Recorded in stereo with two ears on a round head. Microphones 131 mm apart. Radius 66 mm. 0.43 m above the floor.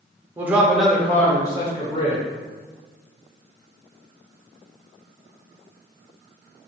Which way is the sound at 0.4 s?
15° right (ahead or behind).